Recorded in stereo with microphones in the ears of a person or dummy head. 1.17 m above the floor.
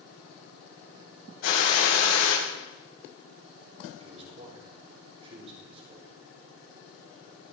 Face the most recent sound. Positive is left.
turn(degrees=-30)  # may be behind; listen again after turning